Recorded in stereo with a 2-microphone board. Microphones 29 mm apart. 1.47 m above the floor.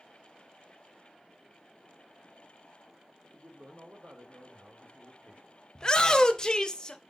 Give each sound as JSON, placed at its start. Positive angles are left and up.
{"t": 3.3, "sound": "a man speaking", "side_deg": -80, "distance_m": 1.4}
{"t": 5.8, "sound": "a shout", "side_deg": 25, "distance_m": 0.5}